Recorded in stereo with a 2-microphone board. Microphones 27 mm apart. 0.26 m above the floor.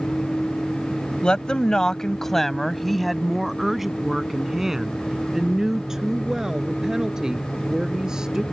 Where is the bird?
No bird in this recording.